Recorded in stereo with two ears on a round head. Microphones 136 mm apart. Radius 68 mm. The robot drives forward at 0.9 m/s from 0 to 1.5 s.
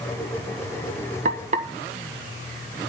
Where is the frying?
55° right (ahead or behind), 1.5 m; by 1.7 s 50° right (ahead or behind), 1.7 m.